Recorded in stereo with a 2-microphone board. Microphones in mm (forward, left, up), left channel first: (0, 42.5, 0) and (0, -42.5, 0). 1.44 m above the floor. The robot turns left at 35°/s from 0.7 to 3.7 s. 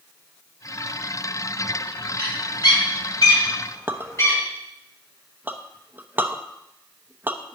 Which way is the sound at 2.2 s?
90° left.